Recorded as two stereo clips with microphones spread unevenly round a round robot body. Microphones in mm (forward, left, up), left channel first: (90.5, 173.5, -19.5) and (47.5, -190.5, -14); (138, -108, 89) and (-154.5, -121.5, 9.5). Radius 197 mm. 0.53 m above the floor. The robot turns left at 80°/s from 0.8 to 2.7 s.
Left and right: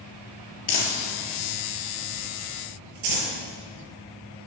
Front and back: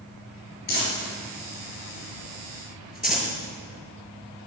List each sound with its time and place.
0.7 s crumpling: 65° left, 4.5 m; by 3.3 s 90° right, 4.5 m